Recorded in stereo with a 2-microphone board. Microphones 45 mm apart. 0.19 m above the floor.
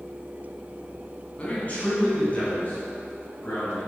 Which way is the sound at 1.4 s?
30° left (ahead or behind).